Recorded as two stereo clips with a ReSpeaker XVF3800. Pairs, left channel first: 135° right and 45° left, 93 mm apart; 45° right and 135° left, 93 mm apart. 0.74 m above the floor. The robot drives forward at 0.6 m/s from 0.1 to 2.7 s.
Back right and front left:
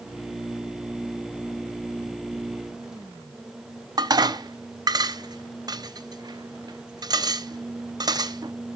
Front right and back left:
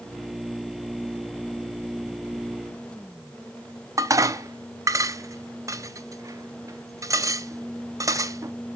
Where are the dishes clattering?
85° left, 0.6 m.